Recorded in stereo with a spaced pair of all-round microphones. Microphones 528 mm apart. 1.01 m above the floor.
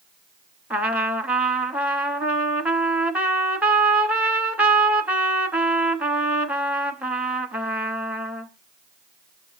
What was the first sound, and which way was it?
A trumpet, centre (ahead or behind).